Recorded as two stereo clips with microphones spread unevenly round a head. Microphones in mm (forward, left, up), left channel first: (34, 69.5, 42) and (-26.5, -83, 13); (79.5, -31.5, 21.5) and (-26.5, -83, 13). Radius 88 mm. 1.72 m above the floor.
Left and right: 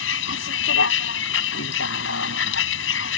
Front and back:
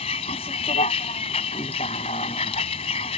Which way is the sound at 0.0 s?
85° left.